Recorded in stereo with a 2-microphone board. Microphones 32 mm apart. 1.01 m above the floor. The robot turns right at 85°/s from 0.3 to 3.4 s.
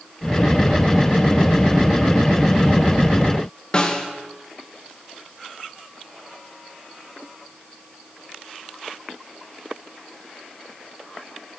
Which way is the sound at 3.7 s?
25° left (ahead or behind).